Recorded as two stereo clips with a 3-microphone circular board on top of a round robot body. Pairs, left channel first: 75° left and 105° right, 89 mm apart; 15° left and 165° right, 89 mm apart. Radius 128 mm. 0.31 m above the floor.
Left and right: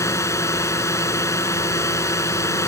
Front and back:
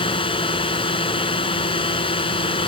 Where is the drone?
20° left.